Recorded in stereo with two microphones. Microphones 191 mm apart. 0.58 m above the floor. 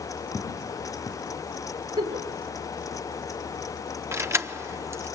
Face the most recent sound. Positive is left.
turn(degrees=-15)  # may be behind; listen again after turning